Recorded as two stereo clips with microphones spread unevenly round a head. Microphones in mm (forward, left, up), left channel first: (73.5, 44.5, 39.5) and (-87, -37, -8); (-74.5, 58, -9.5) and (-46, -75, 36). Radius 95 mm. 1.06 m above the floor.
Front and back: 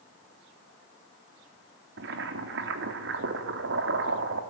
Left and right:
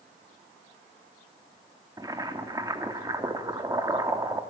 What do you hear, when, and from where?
2.0 s boiling: 145° right, 2.5 m